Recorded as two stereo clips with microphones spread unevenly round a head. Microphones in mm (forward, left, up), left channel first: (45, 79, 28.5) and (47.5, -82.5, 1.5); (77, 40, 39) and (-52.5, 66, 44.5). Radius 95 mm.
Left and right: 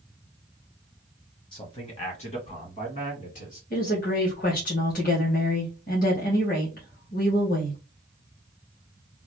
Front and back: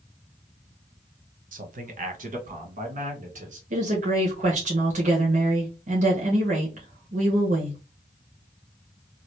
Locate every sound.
1.5 s a man speaking: 160° left, 1.1 m; by 3.6 s 145° left, 2 m
3.7 s a woman speaking: 140° left, 1.3 m